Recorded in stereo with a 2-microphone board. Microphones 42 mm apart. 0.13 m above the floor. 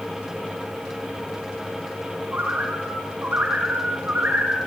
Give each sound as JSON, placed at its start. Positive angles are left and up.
{"t": 2.3, "sound": "a bird", "side_deg": -45, "distance_m": 8.0}